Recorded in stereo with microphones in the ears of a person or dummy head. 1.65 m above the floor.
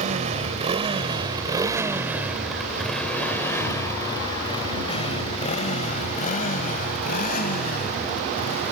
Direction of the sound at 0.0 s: 40° right (ahead or behind).